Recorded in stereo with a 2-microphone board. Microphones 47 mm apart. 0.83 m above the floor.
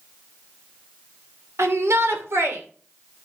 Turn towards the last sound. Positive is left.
turn(degrees=-65)  # may be behind; listen again after turning